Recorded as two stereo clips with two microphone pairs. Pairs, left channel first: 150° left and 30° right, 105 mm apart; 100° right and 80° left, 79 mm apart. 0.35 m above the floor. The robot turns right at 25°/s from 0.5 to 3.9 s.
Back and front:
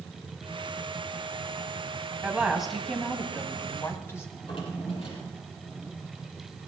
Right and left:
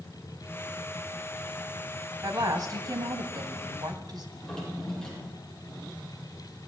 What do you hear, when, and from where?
2.2 s a woman speaking: 45° left, 2.5 m; by 4.2 s 85° left, 2.5 m
4.3 s a drawer: straight behind, 6.5 m